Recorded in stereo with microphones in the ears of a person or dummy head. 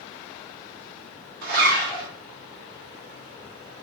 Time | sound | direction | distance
1.4 | a zipper | 55° right (ahead or behind) | 1.2 m